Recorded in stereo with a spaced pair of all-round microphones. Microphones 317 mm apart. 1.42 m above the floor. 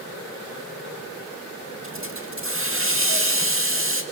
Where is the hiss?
40° right (ahead or behind), 2 m.